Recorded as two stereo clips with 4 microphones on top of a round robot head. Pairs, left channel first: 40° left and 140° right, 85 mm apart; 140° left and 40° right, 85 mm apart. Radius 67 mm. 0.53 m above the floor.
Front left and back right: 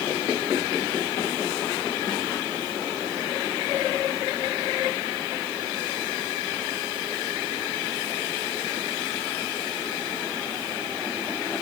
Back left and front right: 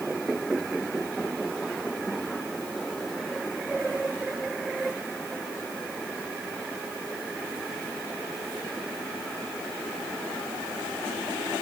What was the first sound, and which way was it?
Only background noise.